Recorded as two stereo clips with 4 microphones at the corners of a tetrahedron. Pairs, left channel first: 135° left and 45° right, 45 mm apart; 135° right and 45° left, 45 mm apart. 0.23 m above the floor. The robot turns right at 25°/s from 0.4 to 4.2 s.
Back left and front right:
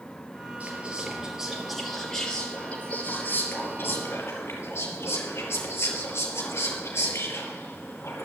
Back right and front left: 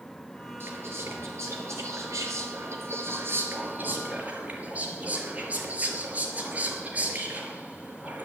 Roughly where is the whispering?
Ahead.